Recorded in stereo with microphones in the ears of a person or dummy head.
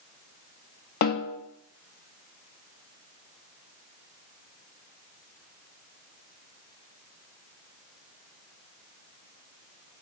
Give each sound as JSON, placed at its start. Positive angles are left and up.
{"t": 1.0, "sound": "a snare drum", "side_deg": 55, "distance_m": 0.9}